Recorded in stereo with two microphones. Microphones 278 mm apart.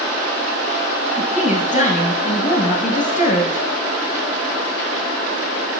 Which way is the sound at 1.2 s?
30° left (ahead or behind).